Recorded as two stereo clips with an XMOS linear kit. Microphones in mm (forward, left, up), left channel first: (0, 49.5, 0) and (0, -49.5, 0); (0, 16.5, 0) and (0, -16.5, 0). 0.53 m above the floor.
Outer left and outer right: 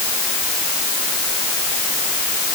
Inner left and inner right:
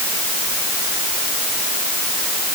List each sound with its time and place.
Only background noise.